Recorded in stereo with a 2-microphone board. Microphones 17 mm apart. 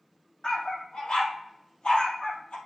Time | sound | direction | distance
0.4 | a dog barking | 75° left (ahead or behind) | 2.5 m